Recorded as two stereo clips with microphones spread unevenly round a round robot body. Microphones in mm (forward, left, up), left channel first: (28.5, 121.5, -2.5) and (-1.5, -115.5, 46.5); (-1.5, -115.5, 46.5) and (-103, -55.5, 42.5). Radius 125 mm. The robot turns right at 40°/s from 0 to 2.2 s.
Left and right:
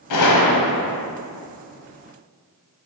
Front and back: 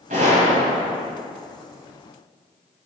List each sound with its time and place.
0.1 s a gunshot: 95° left, 1.3 m; by 0.9 s 130° left, 1.3 m